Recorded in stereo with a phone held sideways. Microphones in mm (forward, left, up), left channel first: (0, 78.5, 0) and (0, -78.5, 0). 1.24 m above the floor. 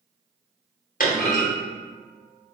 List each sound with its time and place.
1.0 s a clunk: 60° left (ahead or behind), 1.0 m